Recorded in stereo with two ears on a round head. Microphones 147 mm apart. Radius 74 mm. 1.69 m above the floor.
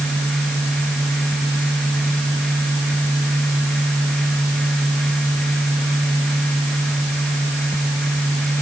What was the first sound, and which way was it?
Only background noise.